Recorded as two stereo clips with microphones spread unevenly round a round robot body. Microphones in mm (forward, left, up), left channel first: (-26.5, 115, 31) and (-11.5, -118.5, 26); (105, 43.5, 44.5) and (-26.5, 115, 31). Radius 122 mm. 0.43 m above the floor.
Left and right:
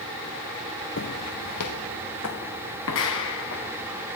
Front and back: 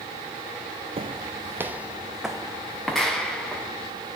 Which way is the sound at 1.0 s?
110° left.